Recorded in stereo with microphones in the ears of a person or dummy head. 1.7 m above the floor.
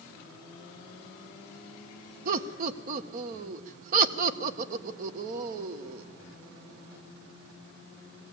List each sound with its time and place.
2.2 s laughter: 45° right (ahead or behind), 1.1 m